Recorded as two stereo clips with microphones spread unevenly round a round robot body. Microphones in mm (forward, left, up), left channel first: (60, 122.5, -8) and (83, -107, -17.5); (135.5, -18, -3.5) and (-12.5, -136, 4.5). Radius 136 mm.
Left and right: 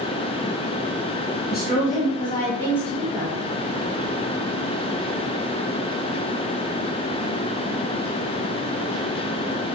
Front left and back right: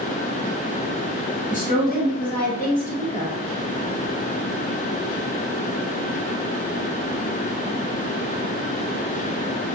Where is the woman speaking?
65° left, 1.2 m; by 3.4 s straight ahead, 1.7 m.